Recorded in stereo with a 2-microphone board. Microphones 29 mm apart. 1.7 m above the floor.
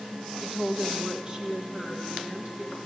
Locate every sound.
0.4 s a woman speaking: centre (ahead or behind), 0.6 m; by 2.8 s 40° right (ahead or behind), 2.5 m